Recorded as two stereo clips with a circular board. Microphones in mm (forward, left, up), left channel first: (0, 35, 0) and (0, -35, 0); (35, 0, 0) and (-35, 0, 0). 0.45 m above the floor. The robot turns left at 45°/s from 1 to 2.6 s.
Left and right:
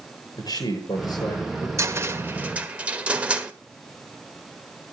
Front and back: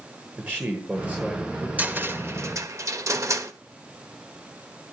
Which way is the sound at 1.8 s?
120° right.